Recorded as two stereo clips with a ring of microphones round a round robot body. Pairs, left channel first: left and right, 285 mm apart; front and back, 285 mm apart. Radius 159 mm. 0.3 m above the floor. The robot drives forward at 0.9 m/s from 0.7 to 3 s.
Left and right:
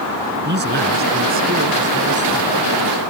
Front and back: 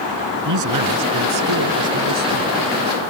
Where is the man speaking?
150° right; by 2.5 s 160° right.